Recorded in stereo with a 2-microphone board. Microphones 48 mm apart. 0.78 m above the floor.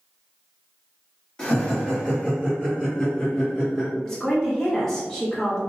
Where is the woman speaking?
10° left (ahead or behind), 0.9 m.